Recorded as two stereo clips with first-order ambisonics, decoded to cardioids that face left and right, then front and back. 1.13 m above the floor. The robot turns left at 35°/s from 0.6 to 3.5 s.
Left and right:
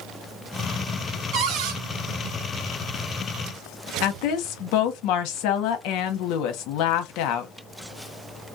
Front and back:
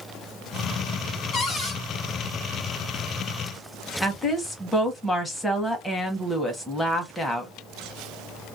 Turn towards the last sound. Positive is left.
turn(degrees=85)